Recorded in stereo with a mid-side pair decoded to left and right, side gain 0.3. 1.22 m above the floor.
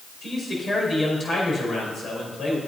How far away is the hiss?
No hiss in this recording.